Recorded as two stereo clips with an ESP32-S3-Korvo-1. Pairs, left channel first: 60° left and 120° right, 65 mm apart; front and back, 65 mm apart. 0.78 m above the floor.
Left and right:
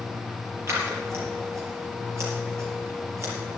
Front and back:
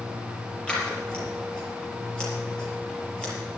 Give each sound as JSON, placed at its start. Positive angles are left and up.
{"t": 0.7, "sound": "scissors", "azimuth_deg": -75, "distance_m": 5.0}